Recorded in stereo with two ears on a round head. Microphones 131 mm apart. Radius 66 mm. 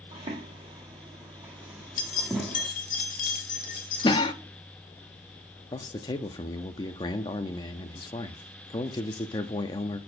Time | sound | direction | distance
0.1 | footsteps | 35° right (ahead or behind) | 2 m
2.0 | keys jangling | 55° left (ahead or behind) | 1.5 m
4.0 | a cough | 30° left (ahead or behind) | 0.8 m
5.7 | a man speaking | 30° left (ahead or behind) | 0.6 m